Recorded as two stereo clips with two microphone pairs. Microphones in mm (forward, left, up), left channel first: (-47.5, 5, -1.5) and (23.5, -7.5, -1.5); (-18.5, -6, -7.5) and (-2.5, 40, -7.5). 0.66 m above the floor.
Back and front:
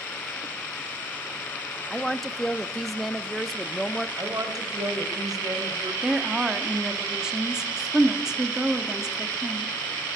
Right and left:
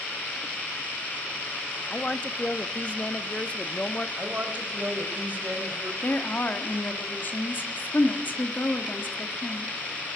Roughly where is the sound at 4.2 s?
Ahead.